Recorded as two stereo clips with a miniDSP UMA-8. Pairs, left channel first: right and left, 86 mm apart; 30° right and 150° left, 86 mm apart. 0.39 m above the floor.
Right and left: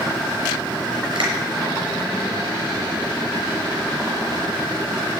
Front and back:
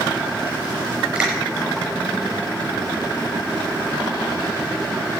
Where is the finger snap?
70° left, 6 m.